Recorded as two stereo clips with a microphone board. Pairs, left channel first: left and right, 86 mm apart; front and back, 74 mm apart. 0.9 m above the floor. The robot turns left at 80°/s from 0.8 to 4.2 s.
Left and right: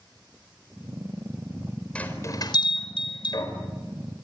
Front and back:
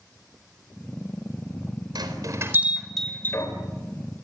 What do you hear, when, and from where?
1.9 s a bell: 170° left, 4.5 m; by 3.5 s 40° left, 4.5 m